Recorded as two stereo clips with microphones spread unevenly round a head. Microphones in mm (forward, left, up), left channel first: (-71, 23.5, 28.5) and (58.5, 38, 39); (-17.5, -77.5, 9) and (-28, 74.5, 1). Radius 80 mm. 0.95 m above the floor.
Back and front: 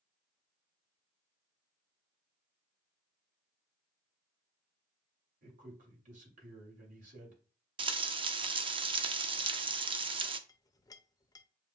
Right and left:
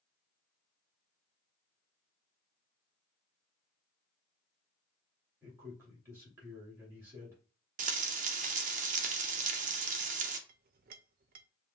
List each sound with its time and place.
5.4 s a man speaking: 20° left, 2.5 m
7.8 s frying: 55° left, 0.6 m
10.5 s a clink: 120° left, 0.5 m